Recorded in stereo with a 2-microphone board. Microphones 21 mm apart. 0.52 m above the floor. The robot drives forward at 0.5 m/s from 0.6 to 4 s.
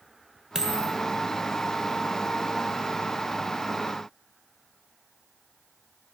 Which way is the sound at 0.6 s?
30° right (ahead or behind).